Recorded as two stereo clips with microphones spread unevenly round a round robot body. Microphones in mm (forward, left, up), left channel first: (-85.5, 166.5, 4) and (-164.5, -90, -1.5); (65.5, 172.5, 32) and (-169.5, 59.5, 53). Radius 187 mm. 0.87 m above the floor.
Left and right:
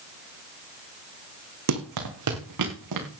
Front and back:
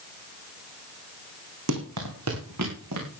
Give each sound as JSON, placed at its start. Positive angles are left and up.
{"t": 1.7, "sound": "running footsteps", "azimuth_deg": -110, "distance_m": 2.5}